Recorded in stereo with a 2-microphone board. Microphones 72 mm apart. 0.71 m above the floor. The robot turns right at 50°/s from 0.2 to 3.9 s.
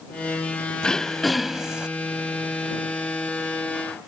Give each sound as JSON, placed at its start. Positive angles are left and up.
{"t": 0.8, "sound": "throat clearing", "azimuth_deg": 155}